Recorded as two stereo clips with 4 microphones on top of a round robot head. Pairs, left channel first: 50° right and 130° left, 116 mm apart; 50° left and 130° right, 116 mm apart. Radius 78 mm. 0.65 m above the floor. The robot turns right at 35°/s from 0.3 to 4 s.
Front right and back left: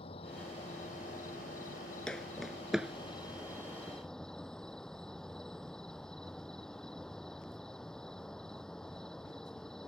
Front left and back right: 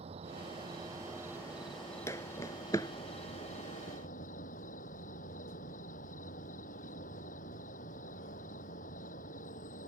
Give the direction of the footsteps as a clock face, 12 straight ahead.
11 o'clock.